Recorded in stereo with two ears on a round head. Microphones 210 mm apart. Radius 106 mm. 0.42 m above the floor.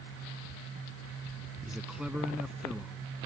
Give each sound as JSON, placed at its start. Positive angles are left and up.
{"t": 1.7, "sound": "a man speaking", "side_deg": -5}